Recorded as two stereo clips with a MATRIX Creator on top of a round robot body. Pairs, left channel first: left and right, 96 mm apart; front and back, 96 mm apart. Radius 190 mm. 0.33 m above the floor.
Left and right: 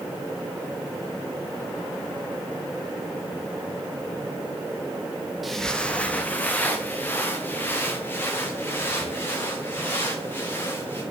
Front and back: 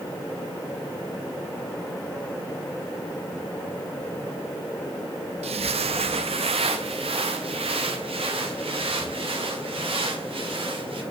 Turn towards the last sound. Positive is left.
turn(degrees=160)